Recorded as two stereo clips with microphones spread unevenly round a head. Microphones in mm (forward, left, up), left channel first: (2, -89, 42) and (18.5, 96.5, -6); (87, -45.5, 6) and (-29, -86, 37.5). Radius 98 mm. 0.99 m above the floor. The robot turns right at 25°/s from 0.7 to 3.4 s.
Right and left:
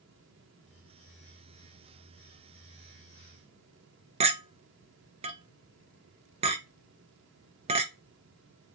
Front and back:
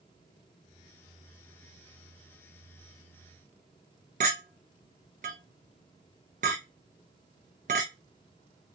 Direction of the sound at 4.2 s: 145° left.